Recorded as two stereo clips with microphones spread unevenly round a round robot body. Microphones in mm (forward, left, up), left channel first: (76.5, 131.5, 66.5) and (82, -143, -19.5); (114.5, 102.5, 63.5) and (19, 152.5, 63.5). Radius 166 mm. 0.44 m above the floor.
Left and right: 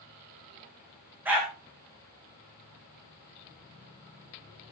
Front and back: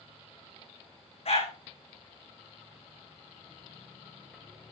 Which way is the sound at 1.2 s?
5° right.